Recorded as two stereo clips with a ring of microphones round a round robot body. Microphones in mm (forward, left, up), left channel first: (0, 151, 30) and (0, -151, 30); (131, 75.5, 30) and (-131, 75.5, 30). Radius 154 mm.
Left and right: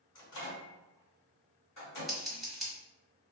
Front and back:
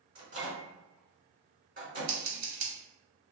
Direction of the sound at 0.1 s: 130° left.